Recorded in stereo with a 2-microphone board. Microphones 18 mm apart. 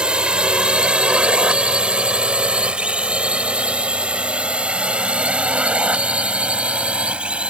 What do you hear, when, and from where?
0.0 s a drone: 55° right (ahead or behind); by 7.5 s 80° right